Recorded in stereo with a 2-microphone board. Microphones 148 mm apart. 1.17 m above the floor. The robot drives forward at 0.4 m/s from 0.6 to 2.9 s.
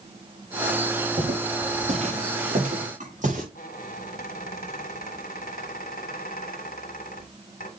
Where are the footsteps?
50° right (ahead or behind), 7 m; by 3.5 s 60° right (ahead or behind), 8 m.